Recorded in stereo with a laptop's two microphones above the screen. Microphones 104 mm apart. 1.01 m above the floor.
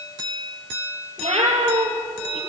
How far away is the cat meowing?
About 4.5 m.